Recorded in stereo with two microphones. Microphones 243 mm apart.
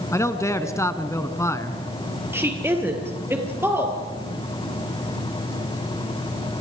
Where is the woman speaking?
10° right (ahead or behind), 3.5 m.